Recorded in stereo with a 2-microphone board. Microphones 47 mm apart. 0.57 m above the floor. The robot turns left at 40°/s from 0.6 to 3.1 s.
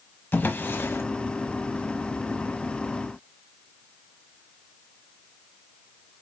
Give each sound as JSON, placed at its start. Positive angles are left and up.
{"t": 0.3, "sound": "a drawer", "side_deg": 45, "distance_m": 1.1}